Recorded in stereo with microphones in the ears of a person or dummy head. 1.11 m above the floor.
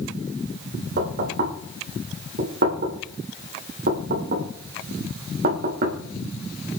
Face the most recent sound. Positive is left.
turn(degrees=-60)  # may be behind; listen again after turning